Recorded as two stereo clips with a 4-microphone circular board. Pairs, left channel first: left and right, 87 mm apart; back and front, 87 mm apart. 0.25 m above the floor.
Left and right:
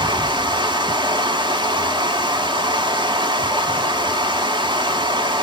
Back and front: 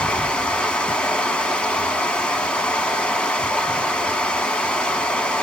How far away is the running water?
About 0.8 m.